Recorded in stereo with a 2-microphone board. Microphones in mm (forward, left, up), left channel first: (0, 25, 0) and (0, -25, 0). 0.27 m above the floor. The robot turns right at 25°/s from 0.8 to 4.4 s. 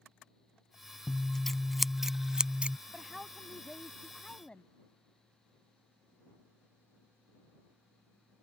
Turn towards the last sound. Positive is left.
turn(degrees=30)